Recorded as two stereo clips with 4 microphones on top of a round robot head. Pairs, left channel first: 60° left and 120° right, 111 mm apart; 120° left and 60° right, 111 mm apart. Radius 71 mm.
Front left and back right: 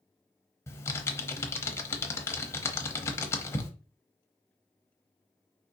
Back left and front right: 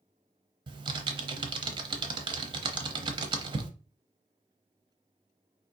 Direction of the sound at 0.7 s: 10° right.